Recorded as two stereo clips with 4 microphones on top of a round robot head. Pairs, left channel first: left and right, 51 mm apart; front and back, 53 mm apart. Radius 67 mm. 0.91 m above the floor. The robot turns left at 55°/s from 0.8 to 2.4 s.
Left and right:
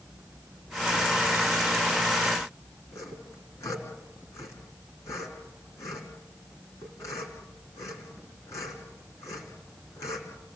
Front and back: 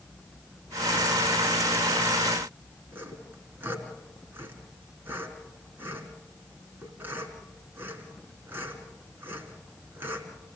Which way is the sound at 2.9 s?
130° left.